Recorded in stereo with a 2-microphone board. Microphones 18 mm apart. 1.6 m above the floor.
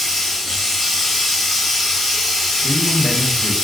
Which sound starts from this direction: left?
A man speaking, at 2.6 s.